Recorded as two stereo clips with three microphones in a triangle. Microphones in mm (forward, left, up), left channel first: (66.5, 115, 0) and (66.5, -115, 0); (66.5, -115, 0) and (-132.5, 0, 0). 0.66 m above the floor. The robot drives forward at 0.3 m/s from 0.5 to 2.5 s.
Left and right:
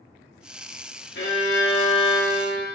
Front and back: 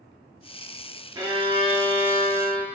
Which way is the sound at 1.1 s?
80° left.